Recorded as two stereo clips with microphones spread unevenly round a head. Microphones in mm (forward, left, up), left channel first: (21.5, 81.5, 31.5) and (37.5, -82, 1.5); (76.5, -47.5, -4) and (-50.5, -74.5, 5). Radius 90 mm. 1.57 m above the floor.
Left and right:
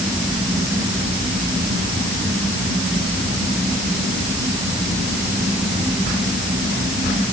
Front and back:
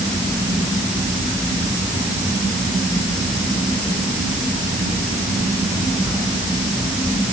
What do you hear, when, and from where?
Only background noise.